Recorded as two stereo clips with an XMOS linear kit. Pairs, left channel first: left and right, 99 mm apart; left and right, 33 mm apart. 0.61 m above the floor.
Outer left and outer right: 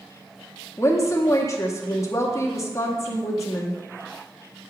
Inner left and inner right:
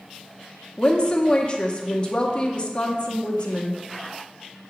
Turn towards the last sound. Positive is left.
turn(degrees=30)  # may be behind; listen again after turning